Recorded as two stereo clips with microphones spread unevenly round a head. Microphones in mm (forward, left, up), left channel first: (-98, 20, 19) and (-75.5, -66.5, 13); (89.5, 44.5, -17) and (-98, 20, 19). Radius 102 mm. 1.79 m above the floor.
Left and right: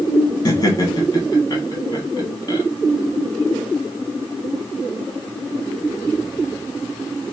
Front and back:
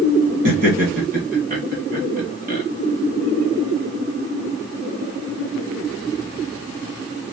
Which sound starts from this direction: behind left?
Laughter, at 0.5 s.